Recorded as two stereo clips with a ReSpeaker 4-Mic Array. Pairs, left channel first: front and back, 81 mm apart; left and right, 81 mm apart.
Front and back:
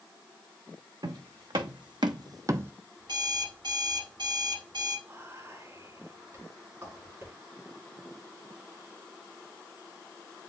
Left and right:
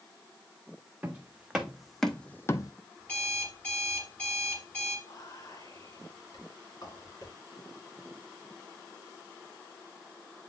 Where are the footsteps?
165° right, 1.3 m; by 2.7 s 120° left, 0.5 m.